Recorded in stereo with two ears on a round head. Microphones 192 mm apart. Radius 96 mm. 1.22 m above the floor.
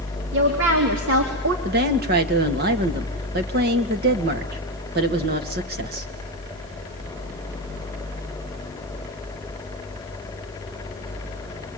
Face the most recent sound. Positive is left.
turn(degrees=-45)  # may be behind; listen again after turning